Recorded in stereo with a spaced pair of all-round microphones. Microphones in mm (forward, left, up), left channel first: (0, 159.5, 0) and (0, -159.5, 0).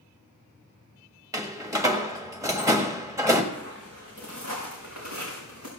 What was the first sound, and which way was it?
A door slam, 10° right (ahead or behind).